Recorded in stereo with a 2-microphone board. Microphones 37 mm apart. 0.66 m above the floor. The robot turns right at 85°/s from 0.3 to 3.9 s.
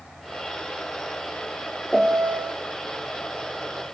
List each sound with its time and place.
1.9 s a piano: 165° right, 0.8 m; by 2.5 s 115° right, 0.8 m